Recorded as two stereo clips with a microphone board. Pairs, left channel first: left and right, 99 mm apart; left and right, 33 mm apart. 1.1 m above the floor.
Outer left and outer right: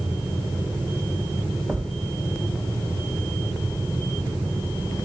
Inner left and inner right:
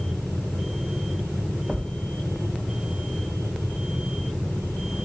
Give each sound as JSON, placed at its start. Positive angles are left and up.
{"t": 1.7, "sound": "a thud", "side_deg": -10, "distance_m": 1.5}